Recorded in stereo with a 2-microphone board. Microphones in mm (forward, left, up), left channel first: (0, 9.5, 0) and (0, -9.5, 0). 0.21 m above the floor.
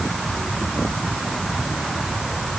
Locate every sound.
Only background noise.